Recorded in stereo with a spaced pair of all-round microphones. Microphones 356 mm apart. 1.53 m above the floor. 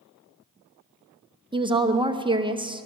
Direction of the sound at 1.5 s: 15° right (ahead or behind).